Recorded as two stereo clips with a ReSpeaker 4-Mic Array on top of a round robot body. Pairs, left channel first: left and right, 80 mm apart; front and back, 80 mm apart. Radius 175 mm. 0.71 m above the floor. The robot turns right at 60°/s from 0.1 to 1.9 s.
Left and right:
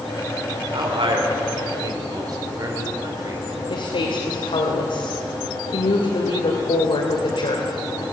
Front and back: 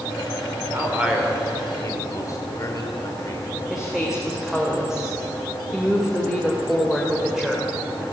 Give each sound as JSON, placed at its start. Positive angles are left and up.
{"t": 0.7, "sound": "a man speaking", "azimuth_deg": -120, "distance_m": 3.5}
{"t": 3.7, "sound": "a woman speaking", "azimuth_deg": 95, "distance_m": 3.0}